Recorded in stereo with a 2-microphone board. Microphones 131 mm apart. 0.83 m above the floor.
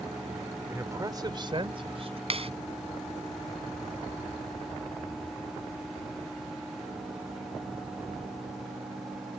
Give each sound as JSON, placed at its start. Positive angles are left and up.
{"t": 0.7, "sound": "a man speaking", "side_deg": -20}
{"t": 2.3, "sound": "a clap", "side_deg": -50}